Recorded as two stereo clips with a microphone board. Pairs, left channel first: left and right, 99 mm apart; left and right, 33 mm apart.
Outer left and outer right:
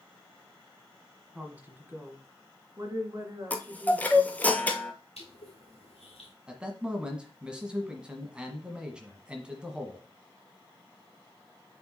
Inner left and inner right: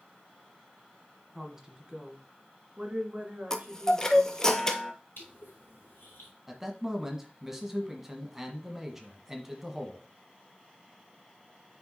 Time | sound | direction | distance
1.4 | a woman speaking | 10° right (ahead or behind) | 1.2 m
3.5 | a chime | 15° left (ahead or behind) | 0.7 m
5.2 | crushing | 85° left | 2.5 m
6.5 | a man speaking | 10° right (ahead or behind) | 1.3 m